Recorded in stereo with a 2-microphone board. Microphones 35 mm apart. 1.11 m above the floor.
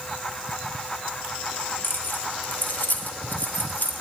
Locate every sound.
1.8 s keys jangling: 65° left (ahead or behind), 1.3 m; by 3.9 s 55° left (ahead or behind), 2.5 m